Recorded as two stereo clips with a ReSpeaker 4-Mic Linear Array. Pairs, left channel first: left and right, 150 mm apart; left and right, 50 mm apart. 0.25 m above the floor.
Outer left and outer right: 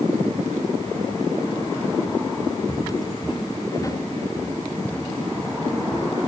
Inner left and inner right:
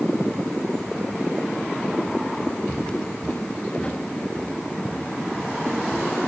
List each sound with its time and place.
2.7 s footsteps: 45° left (ahead or behind), 1.9 m; by 6.3 s 5° right (ahead or behind), 3 m